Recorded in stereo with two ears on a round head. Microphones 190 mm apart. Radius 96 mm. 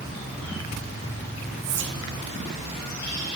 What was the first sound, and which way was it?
Whispering, 60° right (ahead or behind).